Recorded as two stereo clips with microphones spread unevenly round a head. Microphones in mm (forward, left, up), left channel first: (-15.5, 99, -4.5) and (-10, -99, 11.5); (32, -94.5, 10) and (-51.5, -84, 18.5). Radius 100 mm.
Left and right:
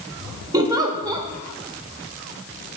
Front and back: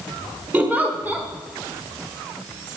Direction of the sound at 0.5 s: 140° right.